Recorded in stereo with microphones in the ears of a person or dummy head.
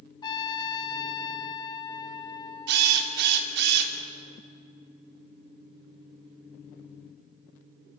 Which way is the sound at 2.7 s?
65° right (ahead or behind).